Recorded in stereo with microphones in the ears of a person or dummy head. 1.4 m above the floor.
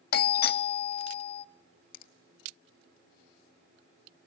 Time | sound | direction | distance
0.1 | a doorbell | 50° left (ahead or behind) | 0.6 m
1.9 | a finger snap | 55° left (ahead or behind) | 1.3 m